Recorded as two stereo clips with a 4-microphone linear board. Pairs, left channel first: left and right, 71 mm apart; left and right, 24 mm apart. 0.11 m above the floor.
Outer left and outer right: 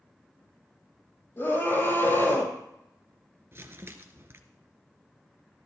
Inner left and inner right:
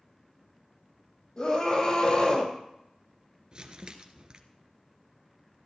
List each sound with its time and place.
1.4 s a scream: 40° left (ahead or behind), 4 m
3.5 s crumpling: 35° right (ahead or behind), 1.3 m